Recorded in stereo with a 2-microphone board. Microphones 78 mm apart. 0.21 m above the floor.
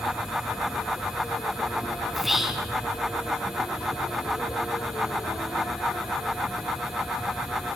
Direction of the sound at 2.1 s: 5° right (ahead or behind).